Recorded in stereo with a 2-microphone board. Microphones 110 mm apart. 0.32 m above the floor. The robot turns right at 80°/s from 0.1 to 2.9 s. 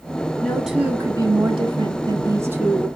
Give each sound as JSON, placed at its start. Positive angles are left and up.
{"t": 0.4, "sound": "a woman speaking", "azimuth_deg": 165, "distance_m": 1.3}